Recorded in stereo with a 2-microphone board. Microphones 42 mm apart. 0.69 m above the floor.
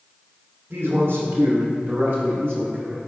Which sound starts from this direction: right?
A man speaking, at 0.7 s.